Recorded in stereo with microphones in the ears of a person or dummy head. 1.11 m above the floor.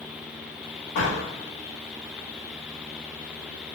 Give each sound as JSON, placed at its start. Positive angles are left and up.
{"t": 0.9, "sound": "a door slam", "side_deg": 50, "distance_m": 1.6}